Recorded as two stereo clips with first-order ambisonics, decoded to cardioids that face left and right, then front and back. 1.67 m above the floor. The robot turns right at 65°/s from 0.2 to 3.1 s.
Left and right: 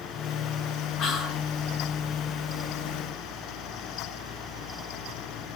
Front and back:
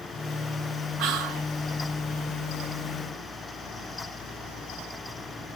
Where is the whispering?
140° left, 1.1 m; by 1.5 s 170° left, 1.1 m.